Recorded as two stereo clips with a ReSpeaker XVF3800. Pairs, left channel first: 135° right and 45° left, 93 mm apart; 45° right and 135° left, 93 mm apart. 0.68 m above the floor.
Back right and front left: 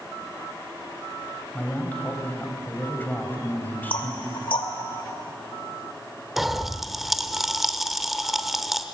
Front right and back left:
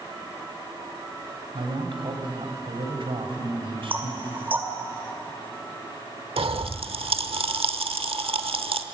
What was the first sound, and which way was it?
A man speaking, 155° left.